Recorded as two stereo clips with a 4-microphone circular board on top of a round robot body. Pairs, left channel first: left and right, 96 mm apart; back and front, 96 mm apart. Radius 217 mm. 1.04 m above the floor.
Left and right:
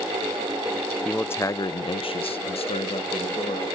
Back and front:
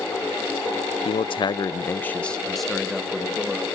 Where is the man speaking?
170° left, 0.7 m; by 3.8 s 80° left, 1.8 m.